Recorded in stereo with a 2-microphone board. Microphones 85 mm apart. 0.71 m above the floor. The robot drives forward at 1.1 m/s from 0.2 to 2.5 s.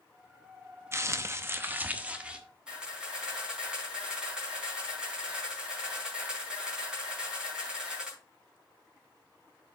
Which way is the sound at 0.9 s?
30° right (ahead or behind).